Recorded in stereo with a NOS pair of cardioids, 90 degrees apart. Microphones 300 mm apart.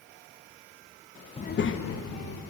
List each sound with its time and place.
1.4 s a child speaking: 20° left, 0.7 m; by 2.4 s 60° left, 2 m